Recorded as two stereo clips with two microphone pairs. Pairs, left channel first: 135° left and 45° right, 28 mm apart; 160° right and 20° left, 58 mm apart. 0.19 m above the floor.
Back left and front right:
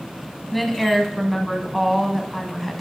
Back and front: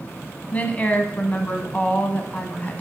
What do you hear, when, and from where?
0.5 s a woman speaking: 130° right, 1.1 m